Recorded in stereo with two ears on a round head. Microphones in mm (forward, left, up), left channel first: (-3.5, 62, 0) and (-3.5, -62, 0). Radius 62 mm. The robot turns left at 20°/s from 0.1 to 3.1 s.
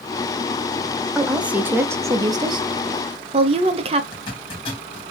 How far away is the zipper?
About 1.9 m.